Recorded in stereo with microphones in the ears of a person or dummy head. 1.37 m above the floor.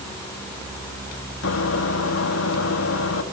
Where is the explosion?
No explosion in this recording.